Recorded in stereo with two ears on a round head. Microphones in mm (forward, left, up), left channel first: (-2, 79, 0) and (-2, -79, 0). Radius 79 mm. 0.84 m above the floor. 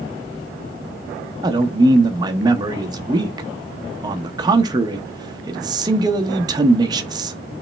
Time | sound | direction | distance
1.4 | a man speaking | 25° right (ahead or behind) | 0.6 m